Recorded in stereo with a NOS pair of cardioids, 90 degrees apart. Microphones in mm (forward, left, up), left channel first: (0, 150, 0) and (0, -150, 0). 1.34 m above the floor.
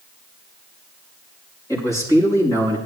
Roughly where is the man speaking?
Ahead.